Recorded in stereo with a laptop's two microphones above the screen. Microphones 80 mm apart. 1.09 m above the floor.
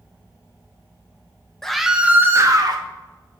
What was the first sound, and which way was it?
A scream, 5° left (ahead or behind).